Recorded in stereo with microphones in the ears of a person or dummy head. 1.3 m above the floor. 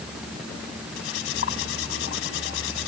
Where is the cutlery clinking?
80° left.